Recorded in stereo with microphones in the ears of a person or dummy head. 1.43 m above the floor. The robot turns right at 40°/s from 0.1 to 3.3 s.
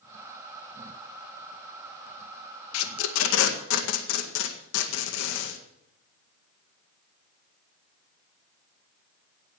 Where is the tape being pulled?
80° left, 1.8 m; by 5.6 s 75° left (ahead or behind), 1.8 m.